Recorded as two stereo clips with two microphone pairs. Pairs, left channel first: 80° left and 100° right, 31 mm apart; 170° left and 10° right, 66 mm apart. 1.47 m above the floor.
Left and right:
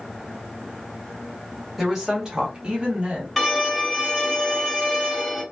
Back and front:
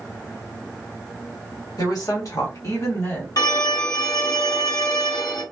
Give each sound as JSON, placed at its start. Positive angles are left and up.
{"t": 1.8, "sound": "a woman speaking", "azimuth_deg": 180, "distance_m": 1.3}
{"t": 3.4, "sound": "a violin", "azimuth_deg": 175, "distance_m": 1.4}